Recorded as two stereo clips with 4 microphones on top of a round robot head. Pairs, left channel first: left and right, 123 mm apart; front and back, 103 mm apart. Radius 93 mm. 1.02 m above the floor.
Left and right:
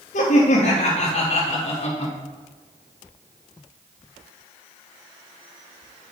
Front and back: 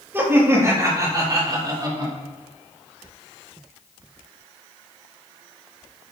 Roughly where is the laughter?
Left.